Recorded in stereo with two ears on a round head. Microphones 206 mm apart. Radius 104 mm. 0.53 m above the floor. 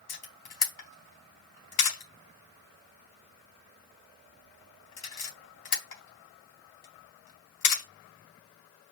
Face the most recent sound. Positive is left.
turn(degrees=65)  # may be behind; listen again after turning